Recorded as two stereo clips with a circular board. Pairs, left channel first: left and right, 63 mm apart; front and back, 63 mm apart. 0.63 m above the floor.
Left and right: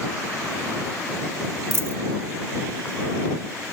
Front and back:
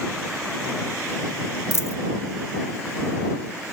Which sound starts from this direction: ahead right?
A dropped coin, at 1.7 s.